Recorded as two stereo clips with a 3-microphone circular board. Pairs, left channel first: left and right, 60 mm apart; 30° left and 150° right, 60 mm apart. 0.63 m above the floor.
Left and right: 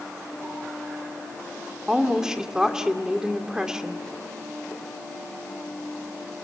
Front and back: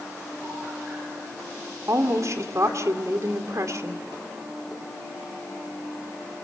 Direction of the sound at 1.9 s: 170° right.